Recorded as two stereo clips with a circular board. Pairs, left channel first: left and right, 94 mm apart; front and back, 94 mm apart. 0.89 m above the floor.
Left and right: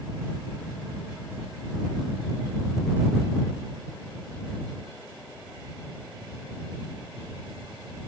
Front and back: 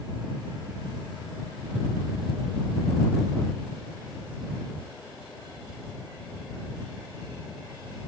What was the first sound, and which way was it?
Only background noise.